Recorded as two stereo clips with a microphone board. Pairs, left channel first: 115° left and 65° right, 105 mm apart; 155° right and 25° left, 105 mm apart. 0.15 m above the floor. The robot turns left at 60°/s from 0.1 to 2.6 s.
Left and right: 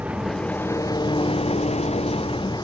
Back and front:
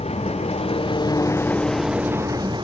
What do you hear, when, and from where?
0.0 s an engine running: 145° right; by 2.6 s 65° left